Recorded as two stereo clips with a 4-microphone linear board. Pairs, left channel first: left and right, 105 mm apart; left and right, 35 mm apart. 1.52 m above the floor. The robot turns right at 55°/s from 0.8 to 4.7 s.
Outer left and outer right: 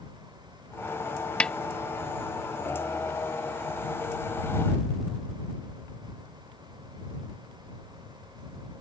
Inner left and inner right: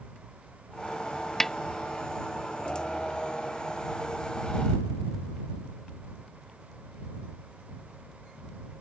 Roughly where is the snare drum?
Centre.